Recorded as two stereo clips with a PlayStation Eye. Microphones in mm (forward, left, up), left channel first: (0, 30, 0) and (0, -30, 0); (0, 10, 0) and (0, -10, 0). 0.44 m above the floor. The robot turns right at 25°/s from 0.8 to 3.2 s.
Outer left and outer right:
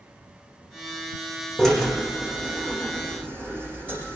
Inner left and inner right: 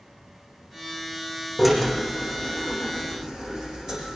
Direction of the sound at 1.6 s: 5° left (ahead or behind).